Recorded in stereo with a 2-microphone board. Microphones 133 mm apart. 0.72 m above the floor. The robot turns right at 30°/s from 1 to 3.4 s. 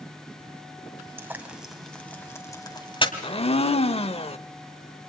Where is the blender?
40° left (ahead or behind), 0.8 m; by 4.4 s 45° left (ahead or behind), 0.8 m.